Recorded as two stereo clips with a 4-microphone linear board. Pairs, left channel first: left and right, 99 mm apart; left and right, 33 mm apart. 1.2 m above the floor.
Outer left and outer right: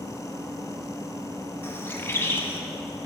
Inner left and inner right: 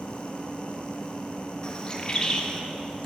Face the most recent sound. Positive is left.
turn(degrees=25)  # may be behind; listen again after turning